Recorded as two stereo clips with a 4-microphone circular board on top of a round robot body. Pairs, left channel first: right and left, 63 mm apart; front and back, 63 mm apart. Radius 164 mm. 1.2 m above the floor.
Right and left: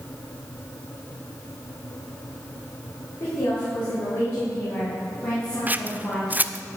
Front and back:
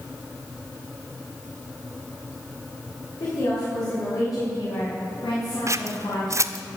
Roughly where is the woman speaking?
Ahead right.